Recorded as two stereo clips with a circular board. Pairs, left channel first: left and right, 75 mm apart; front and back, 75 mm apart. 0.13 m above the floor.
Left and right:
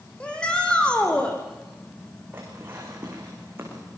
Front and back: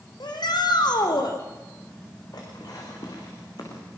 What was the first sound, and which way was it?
A shout, 15° left.